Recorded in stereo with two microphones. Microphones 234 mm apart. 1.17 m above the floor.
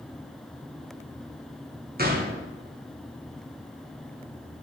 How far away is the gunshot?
About 1.1 m.